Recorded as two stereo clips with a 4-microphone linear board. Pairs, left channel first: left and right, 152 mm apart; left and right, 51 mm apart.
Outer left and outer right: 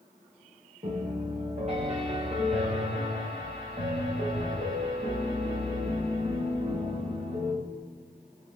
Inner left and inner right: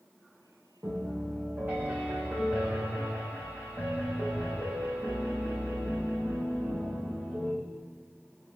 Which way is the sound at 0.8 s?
50° right (ahead or behind).